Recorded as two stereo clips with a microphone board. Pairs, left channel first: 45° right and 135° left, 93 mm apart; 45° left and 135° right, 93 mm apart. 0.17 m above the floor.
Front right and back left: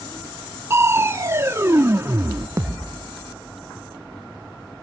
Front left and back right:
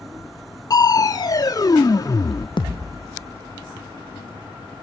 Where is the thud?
75° left, 1.8 m.